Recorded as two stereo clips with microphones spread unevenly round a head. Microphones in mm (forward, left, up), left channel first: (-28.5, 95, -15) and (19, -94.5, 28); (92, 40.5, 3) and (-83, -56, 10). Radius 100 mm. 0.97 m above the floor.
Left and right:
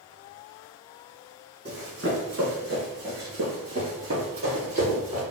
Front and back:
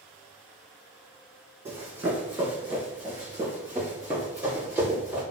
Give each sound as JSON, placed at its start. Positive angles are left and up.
{"t": 1.6, "sound": "running footsteps", "azimuth_deg": -75, "distance_m": 1.8}